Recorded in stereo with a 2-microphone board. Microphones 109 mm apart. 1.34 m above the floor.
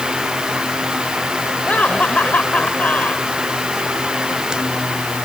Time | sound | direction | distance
1.7 | laughter | 15° left (ahead or behind) | ?